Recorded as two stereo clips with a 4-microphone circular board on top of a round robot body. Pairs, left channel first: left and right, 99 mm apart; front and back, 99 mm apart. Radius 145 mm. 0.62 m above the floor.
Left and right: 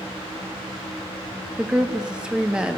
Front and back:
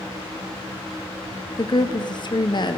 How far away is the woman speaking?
About 1.4 m.